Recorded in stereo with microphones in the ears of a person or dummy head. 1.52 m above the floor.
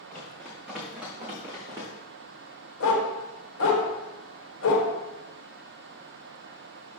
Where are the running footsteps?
5° left (ahead or behind), 4 m; by 1.9 s 20° right (ahead or behind), 4 m.